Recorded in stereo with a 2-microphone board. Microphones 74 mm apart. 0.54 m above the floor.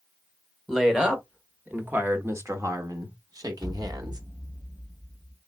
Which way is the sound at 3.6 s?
60° right (ahead or behind).